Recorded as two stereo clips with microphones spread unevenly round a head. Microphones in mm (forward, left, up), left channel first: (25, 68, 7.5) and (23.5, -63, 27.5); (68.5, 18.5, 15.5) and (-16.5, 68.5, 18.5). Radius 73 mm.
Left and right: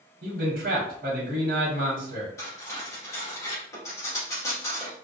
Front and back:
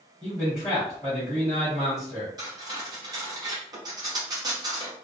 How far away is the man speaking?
About 0.8 m.